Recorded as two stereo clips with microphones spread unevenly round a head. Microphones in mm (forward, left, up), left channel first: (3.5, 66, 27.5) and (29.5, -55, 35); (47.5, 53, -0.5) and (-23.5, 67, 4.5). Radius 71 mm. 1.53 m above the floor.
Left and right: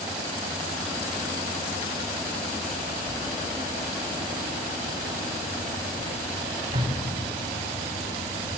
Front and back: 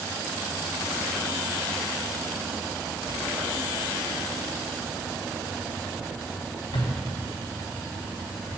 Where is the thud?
30° right, 3 m.